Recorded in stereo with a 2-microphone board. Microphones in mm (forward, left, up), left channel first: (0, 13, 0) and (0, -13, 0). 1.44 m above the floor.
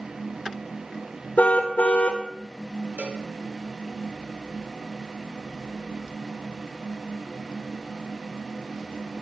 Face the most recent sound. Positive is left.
turn(degrees=-75)  # may be behind; listen again after turning